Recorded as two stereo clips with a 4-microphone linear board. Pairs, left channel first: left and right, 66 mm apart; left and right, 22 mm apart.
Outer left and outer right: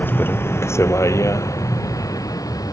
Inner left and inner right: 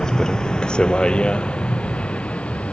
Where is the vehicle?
30° left (ahead or behind); by 2.7 s 60° left (ahead or behind).